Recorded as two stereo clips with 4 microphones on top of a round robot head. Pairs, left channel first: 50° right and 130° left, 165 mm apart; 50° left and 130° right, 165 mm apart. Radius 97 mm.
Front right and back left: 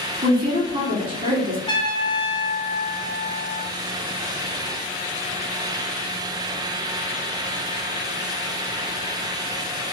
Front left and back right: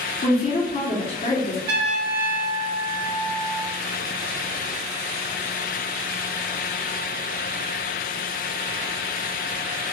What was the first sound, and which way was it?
A woman speaking, 95° left.